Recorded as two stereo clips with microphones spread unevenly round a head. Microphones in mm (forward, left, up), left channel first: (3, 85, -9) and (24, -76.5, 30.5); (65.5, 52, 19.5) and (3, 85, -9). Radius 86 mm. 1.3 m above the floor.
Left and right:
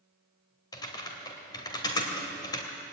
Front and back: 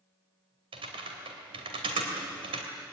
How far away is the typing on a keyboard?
About 2.5 m.